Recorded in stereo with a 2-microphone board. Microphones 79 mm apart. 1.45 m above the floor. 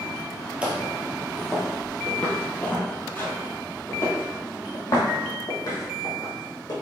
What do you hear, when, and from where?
0.6 s footsteps: 15° right (ahead or behind), 1.9 m; by 6.7 s 55° left (ahead or behind), 3.5 m